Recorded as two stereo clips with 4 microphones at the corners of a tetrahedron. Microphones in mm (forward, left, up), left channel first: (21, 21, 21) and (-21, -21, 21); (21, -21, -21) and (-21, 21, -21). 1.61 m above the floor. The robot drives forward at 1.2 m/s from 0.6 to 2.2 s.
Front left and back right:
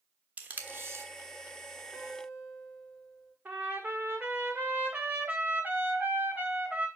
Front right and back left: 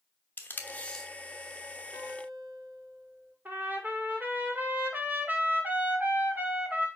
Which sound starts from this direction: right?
Tape being pulled, at 0.4 s.